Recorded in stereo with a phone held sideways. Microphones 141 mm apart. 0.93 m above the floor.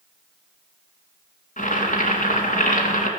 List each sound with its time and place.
1.6 s boiling: 65° left (ahead or behind), 2 m